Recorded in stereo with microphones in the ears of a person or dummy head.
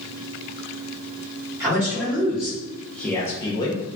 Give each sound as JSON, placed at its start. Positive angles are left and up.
{"t": 1.6, "sound": "a man speaking", "side_deg": -15, "distance_m": 1.7}